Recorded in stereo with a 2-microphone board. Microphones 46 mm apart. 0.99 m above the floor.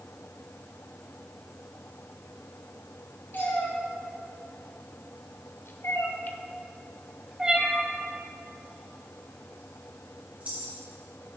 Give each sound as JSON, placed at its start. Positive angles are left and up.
{"t": 3.3, "sound": "a cat meowing", "side_deg": 45, "distance_m": 4.0}